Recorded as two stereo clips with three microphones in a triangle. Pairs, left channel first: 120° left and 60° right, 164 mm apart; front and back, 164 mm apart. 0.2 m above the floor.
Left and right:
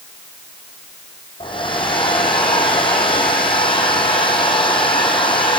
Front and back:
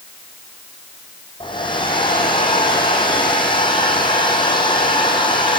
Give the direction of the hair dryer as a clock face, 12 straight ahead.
10 o'clock.